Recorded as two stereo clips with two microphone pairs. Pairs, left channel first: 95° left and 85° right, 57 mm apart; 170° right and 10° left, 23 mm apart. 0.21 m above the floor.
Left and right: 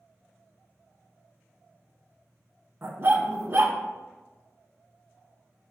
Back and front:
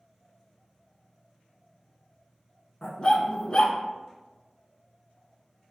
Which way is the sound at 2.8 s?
120° right.